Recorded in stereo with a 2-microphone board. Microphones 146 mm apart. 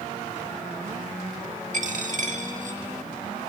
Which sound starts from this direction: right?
A dropped coin, at 1.7 s.